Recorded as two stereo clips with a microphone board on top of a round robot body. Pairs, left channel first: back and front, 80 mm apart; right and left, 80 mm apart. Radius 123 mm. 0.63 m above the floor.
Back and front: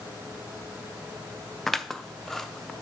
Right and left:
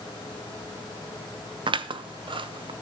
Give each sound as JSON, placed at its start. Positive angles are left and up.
{"t": 1.7, "sound": "scissors", "azimuth_deg": 95, "distance_m": 0.5}